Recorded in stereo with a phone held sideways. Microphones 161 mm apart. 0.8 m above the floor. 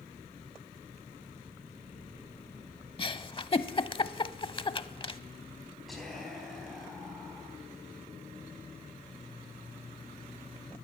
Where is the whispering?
Centre (ahead or behind), 4.5 m.